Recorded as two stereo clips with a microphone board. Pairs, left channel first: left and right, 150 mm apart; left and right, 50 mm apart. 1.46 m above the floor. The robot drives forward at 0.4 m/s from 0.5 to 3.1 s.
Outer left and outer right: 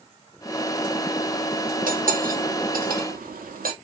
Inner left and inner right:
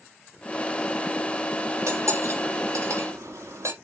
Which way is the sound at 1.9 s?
65° right (ahead or behind).